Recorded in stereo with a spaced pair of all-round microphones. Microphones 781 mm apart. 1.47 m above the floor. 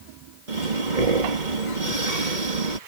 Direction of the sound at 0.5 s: 70° right (ahead or behind).